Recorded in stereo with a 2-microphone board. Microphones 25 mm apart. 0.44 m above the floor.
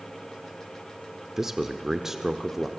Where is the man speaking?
15° right (ahead or behind), 0.9 m.